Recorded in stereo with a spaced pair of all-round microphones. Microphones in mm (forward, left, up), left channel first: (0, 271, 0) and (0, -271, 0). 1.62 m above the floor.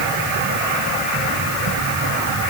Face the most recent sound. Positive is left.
No sound to turn to.